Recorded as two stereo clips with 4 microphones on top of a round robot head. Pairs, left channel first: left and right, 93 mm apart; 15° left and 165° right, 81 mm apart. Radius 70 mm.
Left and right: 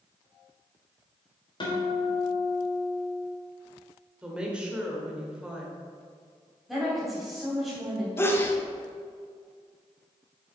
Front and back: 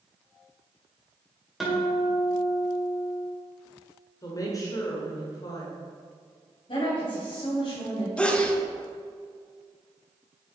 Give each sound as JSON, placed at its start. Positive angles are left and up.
{"t": 1.6, "sound": "a guitar", "azimuth_deg": 105, "distance_m": 2.0}
{"t": 4.2, "sound": "a woman speaking", "azimuth_deg": -15, "distance_m": 1.7}
{"t": 6.7, "sound": "a woman speaking", "azimuth_deg": -5, "distance_m": 2.5}
{"t": 8.2, "sound": "a sneeze", "azimuth_deg": 75, "distance_m": 1.1}